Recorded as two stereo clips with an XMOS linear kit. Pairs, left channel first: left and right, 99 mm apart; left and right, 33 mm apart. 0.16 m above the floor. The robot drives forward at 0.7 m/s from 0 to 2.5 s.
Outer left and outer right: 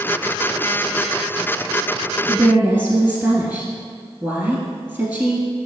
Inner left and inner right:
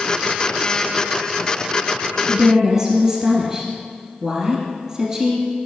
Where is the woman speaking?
20° right (ahead or behind), 1.7 m.